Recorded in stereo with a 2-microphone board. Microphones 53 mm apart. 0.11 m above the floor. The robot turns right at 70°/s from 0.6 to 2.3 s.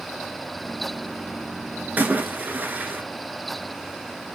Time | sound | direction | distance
2.0 | a splash | 30° right (ahead or behind) | 1.0 m